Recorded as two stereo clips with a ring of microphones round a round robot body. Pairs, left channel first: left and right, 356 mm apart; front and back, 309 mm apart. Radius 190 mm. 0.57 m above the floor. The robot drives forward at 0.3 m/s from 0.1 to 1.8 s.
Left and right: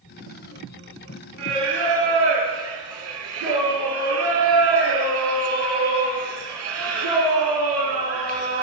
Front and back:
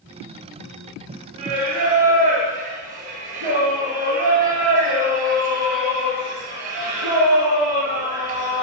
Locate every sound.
1.4 s singing: 140° right, 3.5 m